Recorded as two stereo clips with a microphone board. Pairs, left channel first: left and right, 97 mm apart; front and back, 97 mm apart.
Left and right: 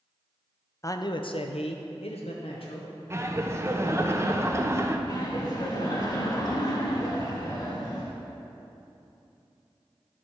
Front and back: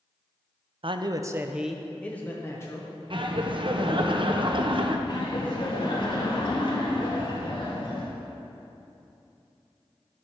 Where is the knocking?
I don't hear knocking.